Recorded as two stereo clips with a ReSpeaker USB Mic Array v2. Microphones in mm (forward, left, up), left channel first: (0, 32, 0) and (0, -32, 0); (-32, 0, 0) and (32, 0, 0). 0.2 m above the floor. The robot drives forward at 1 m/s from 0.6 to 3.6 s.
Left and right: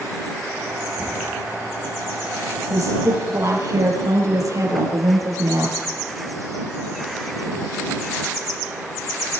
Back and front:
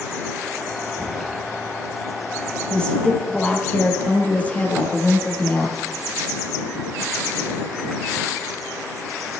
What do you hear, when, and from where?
1.0 s knocking: 40° left, 5.5 m
2.7 s a woman speaking: 105° right, 5 m; by 5.8 s 115° right, 5 m